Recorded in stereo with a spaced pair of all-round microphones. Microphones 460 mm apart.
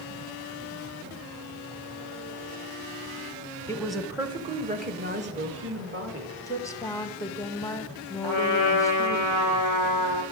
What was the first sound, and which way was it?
A woman speaking, 10° left (ahead or behind).